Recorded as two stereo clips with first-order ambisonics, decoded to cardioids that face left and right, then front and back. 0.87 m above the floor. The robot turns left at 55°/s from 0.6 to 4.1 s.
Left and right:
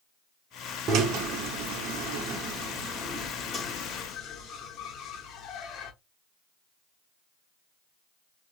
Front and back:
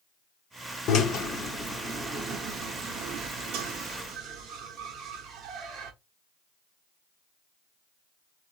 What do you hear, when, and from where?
0.9 s a drill: 45° right, 0.9 m; by 5.9 s 135° left, 0.9 m